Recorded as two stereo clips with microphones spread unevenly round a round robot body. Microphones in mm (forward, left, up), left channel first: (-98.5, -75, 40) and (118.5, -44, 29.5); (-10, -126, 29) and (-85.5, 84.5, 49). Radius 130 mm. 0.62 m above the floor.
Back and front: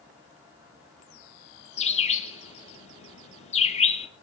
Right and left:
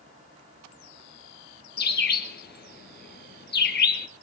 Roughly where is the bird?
Behind right.